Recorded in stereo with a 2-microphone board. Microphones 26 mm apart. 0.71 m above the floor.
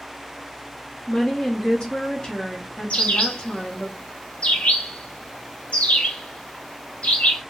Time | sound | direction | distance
1.1 | a woman speaking | 35° left (ahead or behind) | 0.9 m
2.9 | a bird | 50° left (ahead or behind) | 0.7 m